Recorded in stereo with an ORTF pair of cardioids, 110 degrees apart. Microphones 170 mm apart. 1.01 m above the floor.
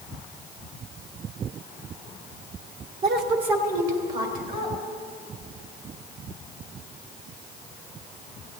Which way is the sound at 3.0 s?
70° right.